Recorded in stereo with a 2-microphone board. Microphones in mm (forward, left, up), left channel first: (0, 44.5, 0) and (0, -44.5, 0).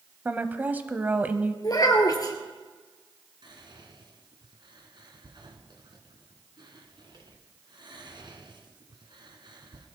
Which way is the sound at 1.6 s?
45° left (ahead or behind).